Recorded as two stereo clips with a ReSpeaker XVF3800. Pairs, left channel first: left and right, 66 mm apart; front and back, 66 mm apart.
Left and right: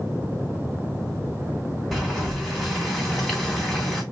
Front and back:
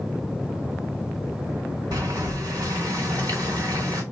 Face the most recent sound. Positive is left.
turn(degrees=180)